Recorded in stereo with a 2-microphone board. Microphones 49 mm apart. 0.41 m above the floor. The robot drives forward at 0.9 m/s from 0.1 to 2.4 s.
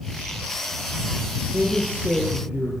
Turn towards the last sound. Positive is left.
turn(degrees=-30)  # may be behind; listen again after turning